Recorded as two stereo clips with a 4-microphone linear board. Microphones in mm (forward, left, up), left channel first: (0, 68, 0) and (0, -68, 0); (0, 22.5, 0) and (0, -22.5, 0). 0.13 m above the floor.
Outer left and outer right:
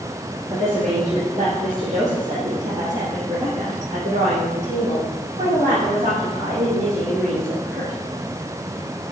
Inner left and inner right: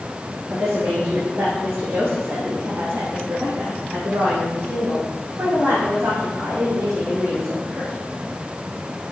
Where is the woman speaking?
60° right (ahead or behind), 3 m; by 7.9 s 65° right (ahead or behind), 6.5 m.